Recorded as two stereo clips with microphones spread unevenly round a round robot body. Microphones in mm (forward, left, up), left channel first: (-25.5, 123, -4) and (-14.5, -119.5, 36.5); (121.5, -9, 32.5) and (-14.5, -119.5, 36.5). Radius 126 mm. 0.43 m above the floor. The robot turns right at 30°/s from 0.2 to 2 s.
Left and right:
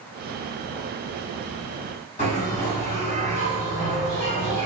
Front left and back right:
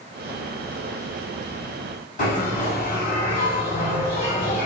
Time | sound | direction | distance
2.2 | a bell | 45° left | 1.9 m